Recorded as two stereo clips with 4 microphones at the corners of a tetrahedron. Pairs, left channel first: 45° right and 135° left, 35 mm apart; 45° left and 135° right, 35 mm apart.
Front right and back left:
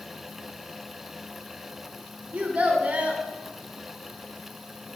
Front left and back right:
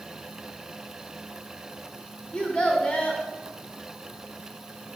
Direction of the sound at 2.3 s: 95° left.